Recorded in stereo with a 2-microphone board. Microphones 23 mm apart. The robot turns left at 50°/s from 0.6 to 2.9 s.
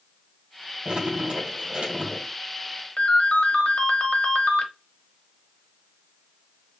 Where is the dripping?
45° right, 3.5 m; by 2.3 s 120° right, 3.5 m.